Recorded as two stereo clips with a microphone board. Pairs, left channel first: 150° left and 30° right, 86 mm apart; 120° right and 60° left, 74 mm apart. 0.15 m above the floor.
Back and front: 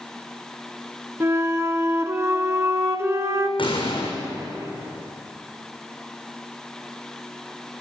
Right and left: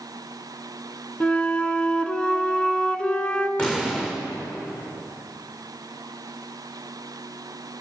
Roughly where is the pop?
Behind.